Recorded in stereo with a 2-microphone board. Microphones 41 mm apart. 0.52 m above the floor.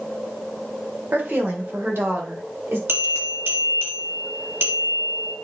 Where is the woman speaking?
55° right (ahead or behind), 2 m; by 2.8 s 65° right (ahead or behind), 3 m.